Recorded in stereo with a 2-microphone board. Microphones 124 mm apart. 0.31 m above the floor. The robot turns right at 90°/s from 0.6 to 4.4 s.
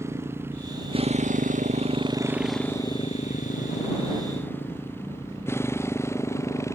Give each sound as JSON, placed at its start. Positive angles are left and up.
{"t": 0.0, "sound": "a motorcycle", "side_deg": -20}